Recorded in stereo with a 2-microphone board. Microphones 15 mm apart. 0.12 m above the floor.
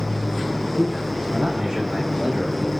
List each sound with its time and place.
0.7 s a man speaking: 80° right, 7 m; by 2.7 s 70° right (ahead or behind), 5 m